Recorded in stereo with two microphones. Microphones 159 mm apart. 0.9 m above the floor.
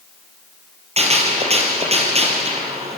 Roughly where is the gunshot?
Right.